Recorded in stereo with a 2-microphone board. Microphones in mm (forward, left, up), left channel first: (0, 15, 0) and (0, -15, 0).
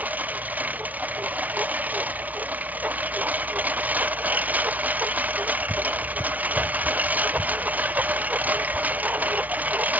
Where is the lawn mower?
70° right (ahead or behind).